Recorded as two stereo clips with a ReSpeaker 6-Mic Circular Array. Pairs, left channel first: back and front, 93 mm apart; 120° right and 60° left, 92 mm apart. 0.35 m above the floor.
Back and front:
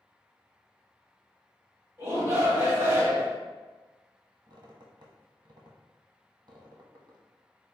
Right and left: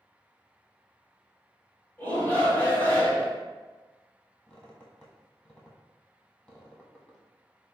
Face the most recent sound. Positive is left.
turn(degrees=-45)